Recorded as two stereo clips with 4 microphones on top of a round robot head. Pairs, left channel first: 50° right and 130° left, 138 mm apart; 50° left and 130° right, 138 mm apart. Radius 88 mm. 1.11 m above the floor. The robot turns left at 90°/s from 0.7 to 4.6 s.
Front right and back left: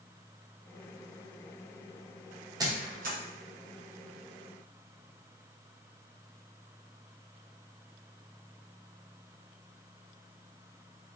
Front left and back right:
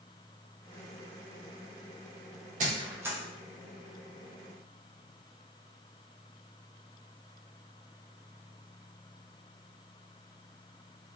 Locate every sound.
2.6 s a squeak: 165° right, 0.9 m; by 3.2 s 145° left, 0.9 m